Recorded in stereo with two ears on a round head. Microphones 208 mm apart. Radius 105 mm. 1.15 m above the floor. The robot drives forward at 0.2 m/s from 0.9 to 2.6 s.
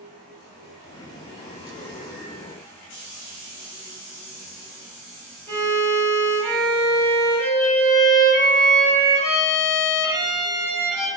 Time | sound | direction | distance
5.5 | a violin | 30° right (ahead or behind) | 1.4 m